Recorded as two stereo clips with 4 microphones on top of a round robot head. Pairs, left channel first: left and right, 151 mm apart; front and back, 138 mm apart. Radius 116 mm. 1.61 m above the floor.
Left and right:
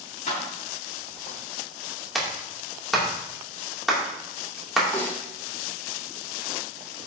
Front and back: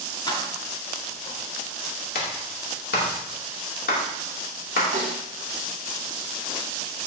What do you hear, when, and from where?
0.3 s keys jangling: 55° left, 3.5 m
2.1 s a clap: straight ahead, 2.5 m
4.9 s a snare drum: 155° left, 3 m